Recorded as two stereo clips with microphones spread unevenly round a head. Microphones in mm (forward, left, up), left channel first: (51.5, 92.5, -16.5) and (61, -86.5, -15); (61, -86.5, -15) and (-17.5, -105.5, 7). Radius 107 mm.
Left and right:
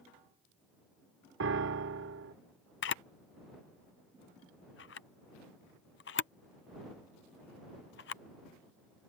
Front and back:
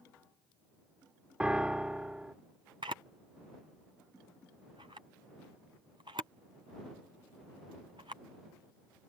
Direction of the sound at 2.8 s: 130° left.